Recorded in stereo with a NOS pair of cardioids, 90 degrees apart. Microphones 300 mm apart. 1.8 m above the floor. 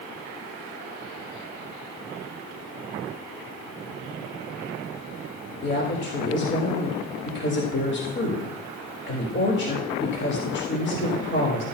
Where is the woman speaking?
40° left, 3.5 m.